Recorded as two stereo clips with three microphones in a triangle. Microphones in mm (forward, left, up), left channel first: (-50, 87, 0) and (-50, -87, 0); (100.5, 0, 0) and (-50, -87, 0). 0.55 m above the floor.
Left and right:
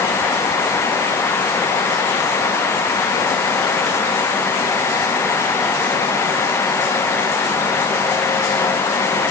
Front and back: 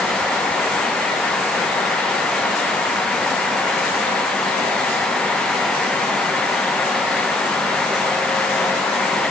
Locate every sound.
Only background noise.